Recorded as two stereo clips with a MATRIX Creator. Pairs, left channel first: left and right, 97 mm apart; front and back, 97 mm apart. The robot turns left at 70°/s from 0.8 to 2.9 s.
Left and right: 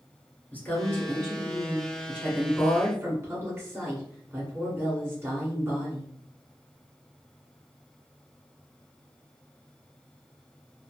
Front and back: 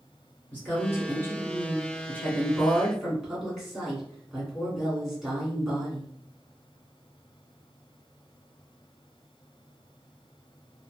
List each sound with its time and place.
0.5 s a woman speaking: 45° left, 1.7 m; by 6.1 s 100° right, 1.7 m